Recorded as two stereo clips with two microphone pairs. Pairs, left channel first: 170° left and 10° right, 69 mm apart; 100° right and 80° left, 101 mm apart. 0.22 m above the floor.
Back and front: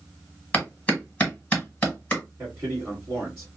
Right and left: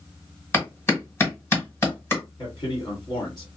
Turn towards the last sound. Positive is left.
turn(degrees=-65)